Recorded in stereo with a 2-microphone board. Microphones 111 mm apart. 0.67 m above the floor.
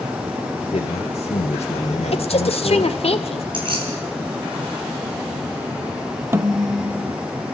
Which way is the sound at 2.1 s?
60° left (ahead or behind).